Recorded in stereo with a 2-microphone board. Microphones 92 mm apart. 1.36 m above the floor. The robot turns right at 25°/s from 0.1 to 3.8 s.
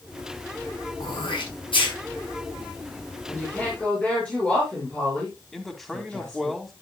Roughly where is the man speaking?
Centre.